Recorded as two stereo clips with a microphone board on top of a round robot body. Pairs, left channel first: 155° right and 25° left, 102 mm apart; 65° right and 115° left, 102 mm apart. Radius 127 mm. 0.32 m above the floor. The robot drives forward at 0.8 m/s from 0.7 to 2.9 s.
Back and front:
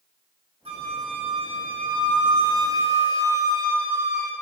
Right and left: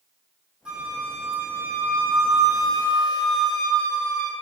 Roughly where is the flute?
Ahead left.